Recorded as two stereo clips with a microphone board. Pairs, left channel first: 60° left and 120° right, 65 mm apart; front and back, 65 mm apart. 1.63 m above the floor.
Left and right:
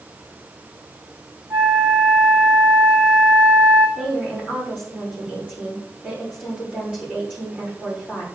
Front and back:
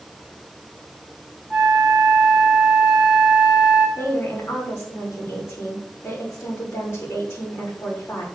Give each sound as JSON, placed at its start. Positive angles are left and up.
{"t": 1.5, "sound": "a flute", "azimuth_deg": -85, "distance_m": 5.0}
{"t": 4.0, "sound": "a woman speaking", "azimuth_deg": -50, "distance_m": 4.0}